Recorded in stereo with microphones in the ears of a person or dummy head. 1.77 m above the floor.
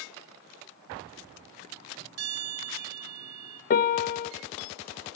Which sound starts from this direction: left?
A piano, at 3.7 s.